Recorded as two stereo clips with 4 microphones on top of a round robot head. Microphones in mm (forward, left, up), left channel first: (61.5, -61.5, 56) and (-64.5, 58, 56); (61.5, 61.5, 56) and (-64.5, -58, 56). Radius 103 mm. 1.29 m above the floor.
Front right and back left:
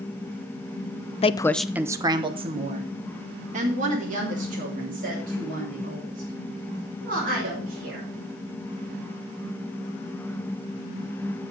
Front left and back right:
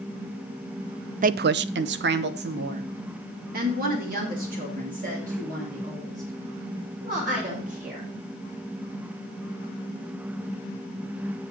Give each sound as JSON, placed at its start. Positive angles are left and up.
{"t": 1.2, "sound": "a woman speaking", "azimuth_deg": -95, "distance_m": 0.5}